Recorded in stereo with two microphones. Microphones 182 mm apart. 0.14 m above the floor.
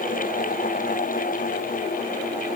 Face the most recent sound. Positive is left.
No sound to turn to.